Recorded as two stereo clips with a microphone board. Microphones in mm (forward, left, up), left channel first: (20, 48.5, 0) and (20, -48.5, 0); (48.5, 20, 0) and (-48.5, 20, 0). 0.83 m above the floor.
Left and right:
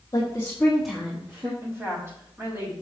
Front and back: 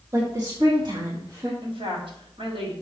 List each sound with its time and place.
0.1 s a woman speaking: 135° left, 1.5 m; by 1.5 s 135° right, 1.5 m
1.6 s a woman speaking: 150° right, 4 m